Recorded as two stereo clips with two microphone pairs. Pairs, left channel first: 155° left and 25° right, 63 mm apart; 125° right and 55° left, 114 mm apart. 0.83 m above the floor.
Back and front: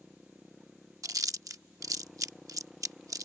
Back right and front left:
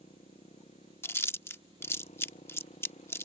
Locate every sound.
0.0 s a motorcycle: 115° right
1.0 s chewing: 55° right